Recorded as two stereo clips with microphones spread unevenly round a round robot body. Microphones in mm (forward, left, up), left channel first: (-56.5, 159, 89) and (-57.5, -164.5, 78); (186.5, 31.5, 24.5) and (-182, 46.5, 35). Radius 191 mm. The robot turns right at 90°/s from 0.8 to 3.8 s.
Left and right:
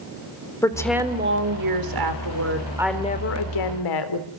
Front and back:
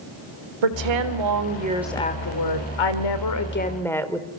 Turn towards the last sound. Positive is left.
turn(degrees=80)